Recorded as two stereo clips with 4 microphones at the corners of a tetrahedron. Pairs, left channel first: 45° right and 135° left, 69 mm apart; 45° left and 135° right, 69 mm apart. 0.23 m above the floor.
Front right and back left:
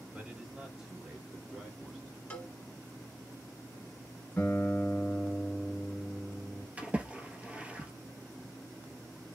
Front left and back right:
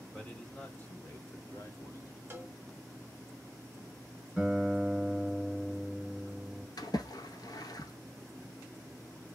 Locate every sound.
0.1 s a man speaking: 110° left, 1.2 m; by 2.2 s 50° left, 1.8 m
2.3 s a cowbell: 105° right, 0.9 m
4.4 s a guitar: 45° right, 1.6 m
6.8 s a splash: 65° left, 0.9 m